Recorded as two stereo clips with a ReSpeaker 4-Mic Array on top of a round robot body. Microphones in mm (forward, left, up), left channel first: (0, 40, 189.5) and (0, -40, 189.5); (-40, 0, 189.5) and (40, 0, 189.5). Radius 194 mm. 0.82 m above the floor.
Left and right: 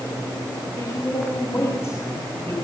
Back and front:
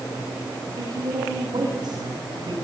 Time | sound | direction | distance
0.8 | a woman speaking | 30° left | 7.5 m